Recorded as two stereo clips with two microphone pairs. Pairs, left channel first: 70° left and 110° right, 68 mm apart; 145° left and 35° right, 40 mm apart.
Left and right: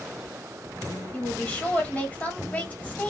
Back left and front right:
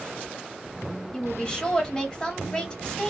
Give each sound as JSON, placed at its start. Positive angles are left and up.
{"t": 1.1, "sound": "a woman speaking", "azimuth_deg": 110, "distance_m": 1.4}